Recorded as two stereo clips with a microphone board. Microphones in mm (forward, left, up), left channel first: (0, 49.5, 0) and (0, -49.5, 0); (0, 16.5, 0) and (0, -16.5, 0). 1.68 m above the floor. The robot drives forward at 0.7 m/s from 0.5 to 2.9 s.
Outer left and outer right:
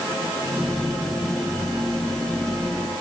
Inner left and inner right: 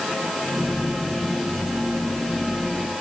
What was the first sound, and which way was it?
Only background noise.